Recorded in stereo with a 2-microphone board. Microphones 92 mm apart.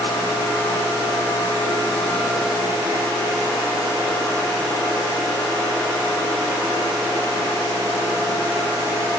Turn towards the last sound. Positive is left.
No sound to turn to.